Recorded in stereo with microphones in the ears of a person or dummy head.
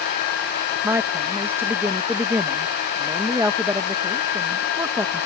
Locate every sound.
0.8 s a woman speaking: 10° right (ahead or behind)